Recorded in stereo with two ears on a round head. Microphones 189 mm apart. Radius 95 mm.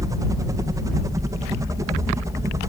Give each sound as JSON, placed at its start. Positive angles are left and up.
{"t": 0.0, "sound": "a helicopter", "side_deg": -15}